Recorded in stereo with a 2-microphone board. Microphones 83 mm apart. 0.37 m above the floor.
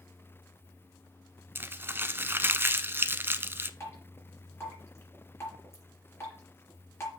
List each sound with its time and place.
1.6 s crumpling: 25° right (ahead or behind), 0.6 m
3.8 s dripping: 30° left (ahead or behind), 4 m